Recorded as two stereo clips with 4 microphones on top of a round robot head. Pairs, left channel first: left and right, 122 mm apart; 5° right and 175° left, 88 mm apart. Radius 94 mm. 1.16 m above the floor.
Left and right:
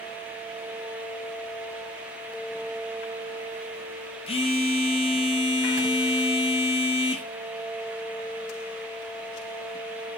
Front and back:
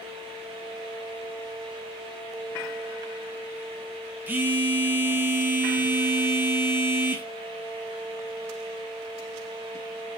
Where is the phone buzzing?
110° left, 0.6 m.